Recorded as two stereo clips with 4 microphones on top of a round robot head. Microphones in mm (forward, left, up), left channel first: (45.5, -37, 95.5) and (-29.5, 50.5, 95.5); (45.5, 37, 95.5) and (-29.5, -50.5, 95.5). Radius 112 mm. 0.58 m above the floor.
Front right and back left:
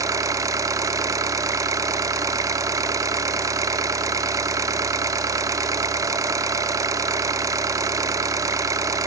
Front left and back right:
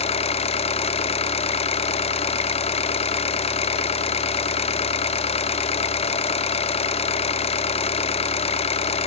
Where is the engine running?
70° left, 0.8 m.